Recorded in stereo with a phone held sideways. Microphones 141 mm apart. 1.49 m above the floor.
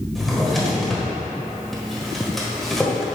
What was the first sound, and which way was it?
A drawer, centre (ahead or behind).